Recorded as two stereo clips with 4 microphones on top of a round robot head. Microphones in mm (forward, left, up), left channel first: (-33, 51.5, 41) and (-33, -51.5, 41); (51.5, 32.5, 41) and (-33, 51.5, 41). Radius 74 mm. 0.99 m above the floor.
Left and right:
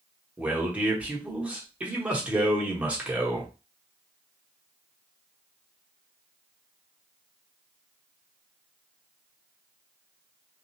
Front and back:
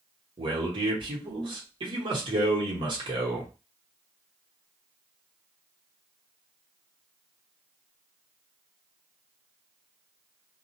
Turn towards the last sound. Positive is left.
turn(degrees=-165)